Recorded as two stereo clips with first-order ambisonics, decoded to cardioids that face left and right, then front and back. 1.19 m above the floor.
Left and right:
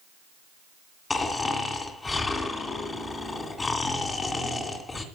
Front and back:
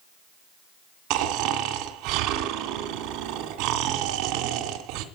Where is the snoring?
165° left, 2.5 m.